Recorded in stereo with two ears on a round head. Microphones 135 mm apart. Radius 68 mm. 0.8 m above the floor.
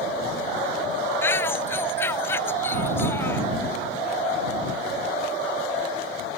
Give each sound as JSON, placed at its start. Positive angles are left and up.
{"t": 1.2, "sound": "a shout", "side_deg": 15}